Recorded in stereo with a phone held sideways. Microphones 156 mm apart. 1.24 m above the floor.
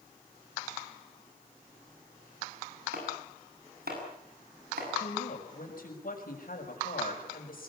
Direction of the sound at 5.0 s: 65° left (ahead or behind).